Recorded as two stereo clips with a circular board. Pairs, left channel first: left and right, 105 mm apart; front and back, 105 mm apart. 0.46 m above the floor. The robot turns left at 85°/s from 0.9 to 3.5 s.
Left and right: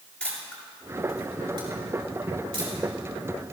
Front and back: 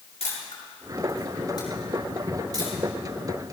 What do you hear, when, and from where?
0.2 s a camera shutter: 10° left, 6.5 m; by 2.7 s 150° right, 6.5 m